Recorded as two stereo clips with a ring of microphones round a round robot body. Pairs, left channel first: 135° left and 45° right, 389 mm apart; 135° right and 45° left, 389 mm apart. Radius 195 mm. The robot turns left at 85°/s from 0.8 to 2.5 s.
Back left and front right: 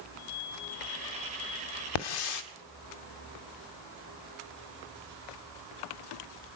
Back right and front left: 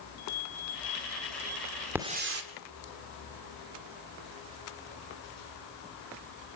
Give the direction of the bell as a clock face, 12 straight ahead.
6 o'clock.